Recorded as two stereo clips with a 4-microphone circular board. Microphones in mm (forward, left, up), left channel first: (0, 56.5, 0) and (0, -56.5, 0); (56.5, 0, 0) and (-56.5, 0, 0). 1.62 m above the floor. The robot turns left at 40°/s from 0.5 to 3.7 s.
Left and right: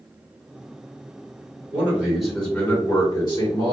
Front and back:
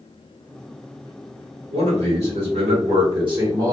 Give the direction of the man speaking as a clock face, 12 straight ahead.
5 o'clock.